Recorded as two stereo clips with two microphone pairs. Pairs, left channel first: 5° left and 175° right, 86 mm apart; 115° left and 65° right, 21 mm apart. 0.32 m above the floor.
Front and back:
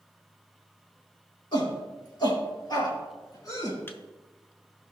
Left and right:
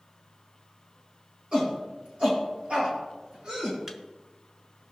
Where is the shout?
30° right, 5 m; by 3.8 s 45° right, 4 m.